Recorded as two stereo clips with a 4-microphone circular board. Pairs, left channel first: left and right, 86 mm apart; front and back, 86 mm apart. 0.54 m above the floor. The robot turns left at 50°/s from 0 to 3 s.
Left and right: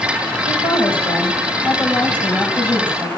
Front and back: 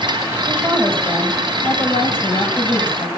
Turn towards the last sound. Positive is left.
turn(degrees=-25)